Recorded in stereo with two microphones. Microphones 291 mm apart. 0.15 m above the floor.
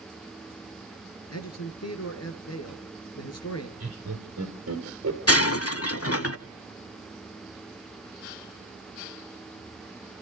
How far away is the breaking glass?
About 0.6 m.